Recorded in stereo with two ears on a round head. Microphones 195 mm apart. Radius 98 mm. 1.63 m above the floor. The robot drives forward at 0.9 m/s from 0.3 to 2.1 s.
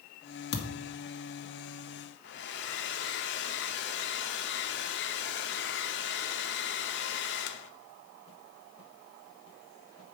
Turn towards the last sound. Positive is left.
turn(degrees=55)  # may be behind; listen again after turning